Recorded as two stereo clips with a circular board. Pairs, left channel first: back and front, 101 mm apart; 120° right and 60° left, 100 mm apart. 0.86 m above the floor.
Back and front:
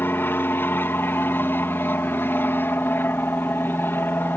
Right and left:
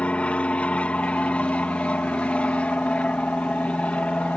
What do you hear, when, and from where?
0.0 s an aircraft: 175° right